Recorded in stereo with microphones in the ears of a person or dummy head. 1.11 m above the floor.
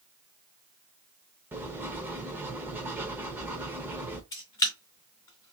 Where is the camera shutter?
15° left (ahead or behind), 0.9 m.